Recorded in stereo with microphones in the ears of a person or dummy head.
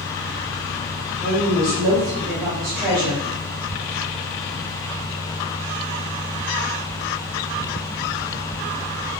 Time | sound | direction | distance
1.2 | a woman speaking | 20° right (ahead or behind) | 1.5 m